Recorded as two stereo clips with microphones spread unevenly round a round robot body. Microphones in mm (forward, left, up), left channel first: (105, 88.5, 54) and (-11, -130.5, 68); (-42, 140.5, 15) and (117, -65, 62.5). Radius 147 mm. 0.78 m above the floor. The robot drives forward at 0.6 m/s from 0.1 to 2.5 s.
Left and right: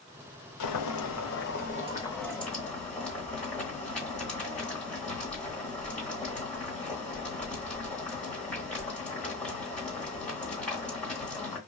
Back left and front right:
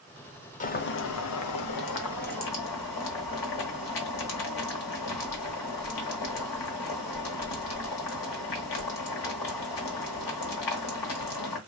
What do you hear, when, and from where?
0.6 s boiling: 60° left, 0.7 m; by 11.6 s 150° left, 1.1 m